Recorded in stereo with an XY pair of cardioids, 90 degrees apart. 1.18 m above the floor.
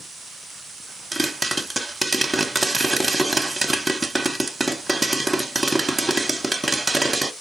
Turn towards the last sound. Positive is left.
turn(degrees=-20)